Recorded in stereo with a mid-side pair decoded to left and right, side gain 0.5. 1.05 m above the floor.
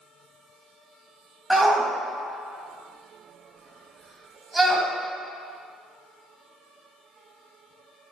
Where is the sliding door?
I don't hear a sliding door.